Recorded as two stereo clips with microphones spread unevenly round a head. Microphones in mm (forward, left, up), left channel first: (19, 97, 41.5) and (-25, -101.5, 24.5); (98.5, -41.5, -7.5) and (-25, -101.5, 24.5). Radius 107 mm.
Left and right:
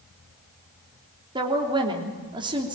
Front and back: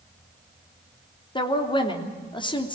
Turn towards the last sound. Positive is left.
turn(degrees=-30)